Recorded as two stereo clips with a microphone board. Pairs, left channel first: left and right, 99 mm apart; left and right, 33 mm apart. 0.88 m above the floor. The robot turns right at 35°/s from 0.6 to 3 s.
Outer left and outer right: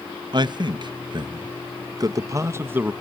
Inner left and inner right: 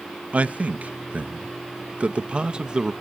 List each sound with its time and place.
0.3 s a man speaking: 45° right (ahead or behind), 0.6 m; by 2.9 s 15° right (ahead or behind), 0.6 m